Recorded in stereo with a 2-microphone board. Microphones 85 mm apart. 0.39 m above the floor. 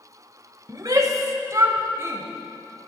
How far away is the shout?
About 1.1 m.